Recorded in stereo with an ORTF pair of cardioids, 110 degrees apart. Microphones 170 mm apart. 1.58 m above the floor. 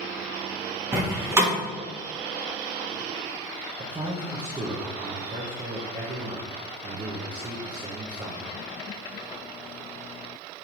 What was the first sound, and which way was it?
A door slam, 15° right.